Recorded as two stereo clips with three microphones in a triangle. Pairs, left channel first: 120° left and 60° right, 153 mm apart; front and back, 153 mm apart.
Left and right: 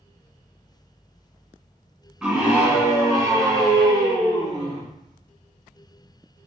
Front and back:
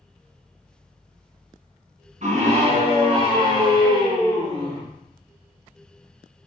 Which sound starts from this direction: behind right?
A scream, at 2.2 s.